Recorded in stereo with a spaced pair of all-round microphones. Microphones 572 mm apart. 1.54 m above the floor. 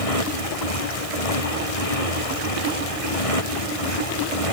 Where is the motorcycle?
85° left; by 4.5 s 75° left (ahead or behind).